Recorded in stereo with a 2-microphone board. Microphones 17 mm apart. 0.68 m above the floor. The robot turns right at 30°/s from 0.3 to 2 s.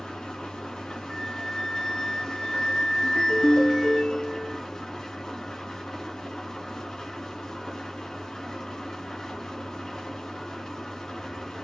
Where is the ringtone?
80° left, 3.5 m.